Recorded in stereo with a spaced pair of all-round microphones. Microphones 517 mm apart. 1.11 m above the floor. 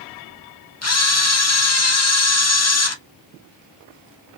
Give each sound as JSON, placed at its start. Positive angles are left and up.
{"t": 0.8, "sound": "a camera shutter", "side_deg": 30, "distance_m": 0.5}